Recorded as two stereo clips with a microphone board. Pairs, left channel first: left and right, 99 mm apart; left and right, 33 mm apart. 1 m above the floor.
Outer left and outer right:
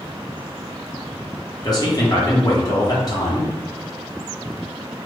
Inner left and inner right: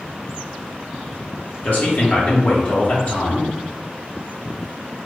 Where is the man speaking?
40° left (ahead or behind), 1.1 m.